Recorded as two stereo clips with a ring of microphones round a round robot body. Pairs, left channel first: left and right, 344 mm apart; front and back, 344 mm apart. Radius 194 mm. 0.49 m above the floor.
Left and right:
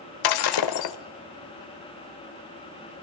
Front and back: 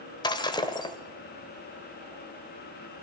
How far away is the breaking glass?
About 1.5 m.